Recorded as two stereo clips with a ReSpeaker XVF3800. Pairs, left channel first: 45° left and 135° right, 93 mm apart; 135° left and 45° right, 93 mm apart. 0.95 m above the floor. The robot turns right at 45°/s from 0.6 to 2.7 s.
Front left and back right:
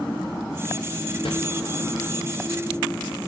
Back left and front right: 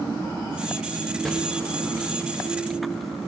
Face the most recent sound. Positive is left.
turn(degrees=115)